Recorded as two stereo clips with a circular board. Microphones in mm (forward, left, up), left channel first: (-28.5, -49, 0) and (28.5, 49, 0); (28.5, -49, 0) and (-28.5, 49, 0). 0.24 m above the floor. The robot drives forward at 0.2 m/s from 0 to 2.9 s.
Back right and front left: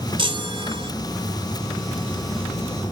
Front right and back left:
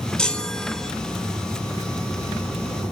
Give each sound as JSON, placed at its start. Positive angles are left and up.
{"t": 0.2, "sound": "a chime", "azimuth_deg": 20, "distance_m": 0.9}